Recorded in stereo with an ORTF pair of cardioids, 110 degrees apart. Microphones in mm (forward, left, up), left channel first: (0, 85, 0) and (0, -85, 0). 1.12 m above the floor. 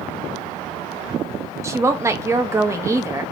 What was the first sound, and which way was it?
A woman speaking, 20° right.